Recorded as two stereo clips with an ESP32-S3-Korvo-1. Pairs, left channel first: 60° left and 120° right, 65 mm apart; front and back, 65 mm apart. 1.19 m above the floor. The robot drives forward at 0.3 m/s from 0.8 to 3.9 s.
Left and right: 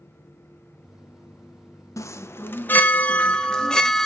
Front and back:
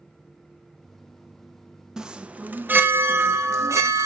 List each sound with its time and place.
2.0 s a chime: 100° left, 0.5 m; by 4.0 s 140° left, 0.8 m